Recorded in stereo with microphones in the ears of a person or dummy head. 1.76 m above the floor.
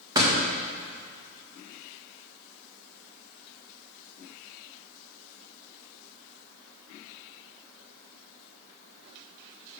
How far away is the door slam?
About 1.8 m.